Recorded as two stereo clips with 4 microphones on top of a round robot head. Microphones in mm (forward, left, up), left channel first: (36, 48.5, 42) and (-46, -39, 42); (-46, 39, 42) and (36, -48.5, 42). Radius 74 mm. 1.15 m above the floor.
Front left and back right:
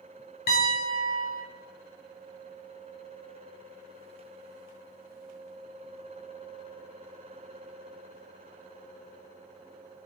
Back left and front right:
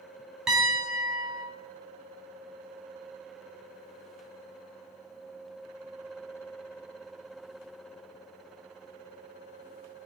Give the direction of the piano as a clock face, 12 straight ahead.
11 o'clock.